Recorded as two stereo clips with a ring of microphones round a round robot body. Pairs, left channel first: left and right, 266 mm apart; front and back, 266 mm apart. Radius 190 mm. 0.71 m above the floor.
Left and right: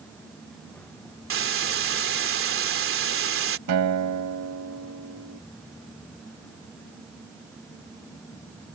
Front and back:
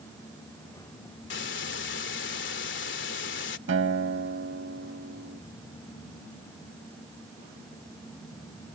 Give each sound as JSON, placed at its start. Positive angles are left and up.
{"t": 1.3, "sound": "a hiss", "azimuth_deg": -55}
{"t": 3.7, "sound": "a guitar", "azimuth_deg": -125}